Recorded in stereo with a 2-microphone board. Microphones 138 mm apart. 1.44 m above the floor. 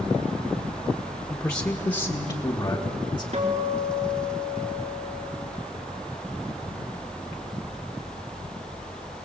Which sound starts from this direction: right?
A guitar, at 3.3 s.